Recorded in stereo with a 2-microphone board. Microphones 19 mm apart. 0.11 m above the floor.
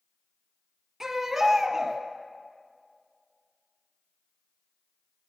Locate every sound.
1.0 s a baby crying: 25° right (ahead or behind), 2 m